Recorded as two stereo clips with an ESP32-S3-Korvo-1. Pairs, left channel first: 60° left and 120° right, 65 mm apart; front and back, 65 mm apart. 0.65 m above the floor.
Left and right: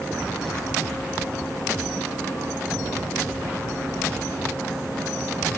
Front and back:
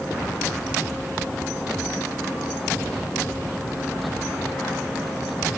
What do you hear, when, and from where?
Only background noise.